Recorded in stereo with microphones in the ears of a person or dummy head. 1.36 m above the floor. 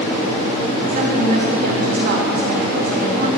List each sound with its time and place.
0.9 s a woman speaking: 55° right (ahead or behind), 2 m